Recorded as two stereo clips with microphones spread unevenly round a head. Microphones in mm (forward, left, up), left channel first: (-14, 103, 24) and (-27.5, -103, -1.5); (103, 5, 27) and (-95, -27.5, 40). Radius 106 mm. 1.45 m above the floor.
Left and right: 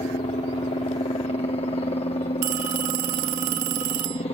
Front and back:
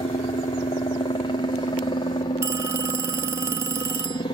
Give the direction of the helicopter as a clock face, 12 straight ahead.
11 o'clock.